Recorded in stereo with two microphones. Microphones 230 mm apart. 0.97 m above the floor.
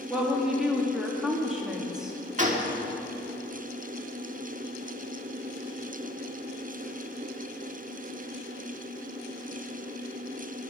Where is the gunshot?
35° right (ahead or behind), 1.6 m.